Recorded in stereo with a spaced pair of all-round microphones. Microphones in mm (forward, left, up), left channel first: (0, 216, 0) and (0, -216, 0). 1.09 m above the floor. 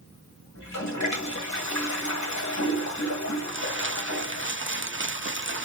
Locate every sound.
0.6 s a toilet flushing: 40° left (ahead or behind), 1.1 m
3.5 s crumpling: 25° right (ahead or behind), 0.7 m